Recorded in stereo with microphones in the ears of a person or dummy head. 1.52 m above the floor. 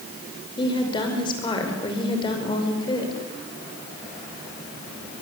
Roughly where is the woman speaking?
Left.